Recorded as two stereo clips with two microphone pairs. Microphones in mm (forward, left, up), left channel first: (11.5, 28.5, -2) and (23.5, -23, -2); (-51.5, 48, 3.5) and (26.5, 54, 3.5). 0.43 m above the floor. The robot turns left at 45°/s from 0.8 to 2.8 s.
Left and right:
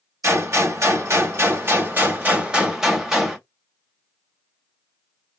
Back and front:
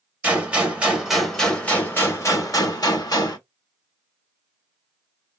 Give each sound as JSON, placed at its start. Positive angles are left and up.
{"t": 0.2, "sound": "a gunshot", "azimuth_deg": -65, "distance_m": 1.9}